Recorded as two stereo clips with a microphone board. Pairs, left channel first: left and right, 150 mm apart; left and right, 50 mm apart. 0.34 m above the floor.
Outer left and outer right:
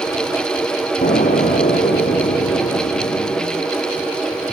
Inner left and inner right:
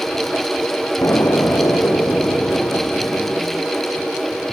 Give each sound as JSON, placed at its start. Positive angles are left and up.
{"t": 1.0, "sound": "an explosion", "side_deg": 70, "distance_m": 3.0}